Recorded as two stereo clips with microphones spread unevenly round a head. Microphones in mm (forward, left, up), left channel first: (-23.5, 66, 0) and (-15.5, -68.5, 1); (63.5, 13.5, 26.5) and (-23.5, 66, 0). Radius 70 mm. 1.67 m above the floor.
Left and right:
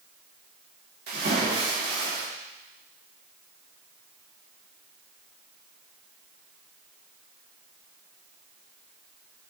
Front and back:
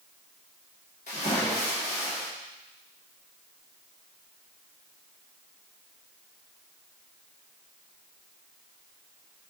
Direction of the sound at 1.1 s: 65° right.